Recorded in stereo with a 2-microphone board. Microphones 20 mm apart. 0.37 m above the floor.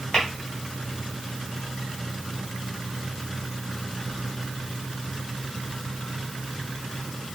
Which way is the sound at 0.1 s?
40° left (ahead or behind).